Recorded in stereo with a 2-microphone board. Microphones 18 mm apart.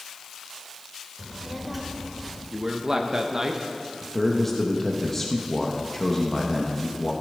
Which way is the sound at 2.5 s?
30° right (ahead or behind).